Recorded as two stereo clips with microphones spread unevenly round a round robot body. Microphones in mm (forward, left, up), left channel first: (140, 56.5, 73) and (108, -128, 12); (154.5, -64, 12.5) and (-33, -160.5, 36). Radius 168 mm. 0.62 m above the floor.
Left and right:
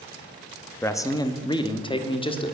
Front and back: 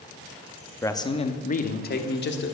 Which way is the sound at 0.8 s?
25° right.